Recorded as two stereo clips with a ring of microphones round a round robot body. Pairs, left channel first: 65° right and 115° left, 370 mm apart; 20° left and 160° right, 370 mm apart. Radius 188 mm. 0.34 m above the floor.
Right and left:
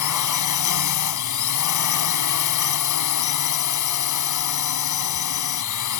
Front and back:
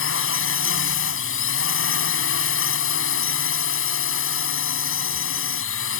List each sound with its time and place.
0.0 s a drone: 30° right